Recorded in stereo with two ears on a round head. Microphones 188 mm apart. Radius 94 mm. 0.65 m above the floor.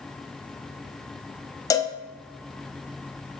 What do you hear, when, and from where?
1.7 s a cowbell: 15° left (ahead or behind), 0.7 m